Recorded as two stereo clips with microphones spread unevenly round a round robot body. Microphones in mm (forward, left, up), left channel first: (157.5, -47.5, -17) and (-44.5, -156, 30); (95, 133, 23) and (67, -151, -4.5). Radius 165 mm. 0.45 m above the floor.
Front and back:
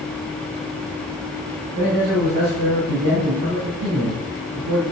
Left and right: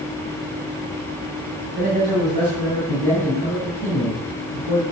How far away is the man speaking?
About 3 m.